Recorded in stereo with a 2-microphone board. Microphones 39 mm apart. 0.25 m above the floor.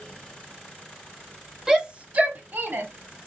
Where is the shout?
15° right (ahead or behind), 1.0 m; by 2.9 s 55° right (ahead or behind), 1.6 m.